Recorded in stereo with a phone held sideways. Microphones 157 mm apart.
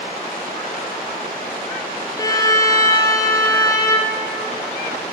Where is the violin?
25° left (ahead or behind), 0.7 m.